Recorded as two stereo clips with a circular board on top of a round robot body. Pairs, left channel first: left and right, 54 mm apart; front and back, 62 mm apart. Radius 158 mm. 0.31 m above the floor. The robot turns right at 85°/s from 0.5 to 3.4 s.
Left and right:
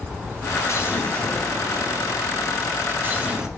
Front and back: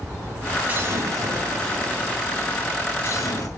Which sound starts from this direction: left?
An explosion, at 0.7 s.